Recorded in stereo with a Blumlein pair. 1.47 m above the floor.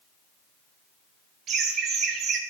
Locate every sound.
1.5 s laughter: 30° right, 1.1 m